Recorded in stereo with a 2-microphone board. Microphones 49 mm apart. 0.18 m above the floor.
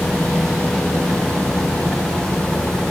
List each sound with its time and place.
Only background noise.